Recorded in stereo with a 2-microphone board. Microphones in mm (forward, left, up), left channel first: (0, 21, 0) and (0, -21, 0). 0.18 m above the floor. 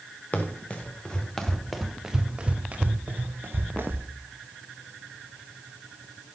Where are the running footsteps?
35° left (ahead or behind), 3 m; by 4.1 s 60° right (ahead or behind), 3 m.